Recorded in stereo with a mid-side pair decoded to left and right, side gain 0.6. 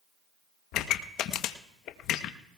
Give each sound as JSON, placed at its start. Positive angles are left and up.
{"t": 0.7, "sound": "a pop", "azimuth_deg": 65, "distance_m": 0.9}